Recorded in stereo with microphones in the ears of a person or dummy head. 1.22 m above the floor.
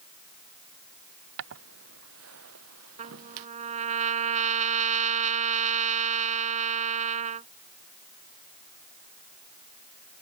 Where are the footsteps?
65° right (ahead or behind); by 3.5 s 75° right (ahead or behind).